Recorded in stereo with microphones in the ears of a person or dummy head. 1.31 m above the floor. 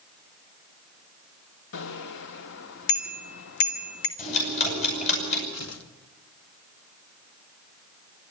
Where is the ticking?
45° left (ahead or behind), 9.5 m.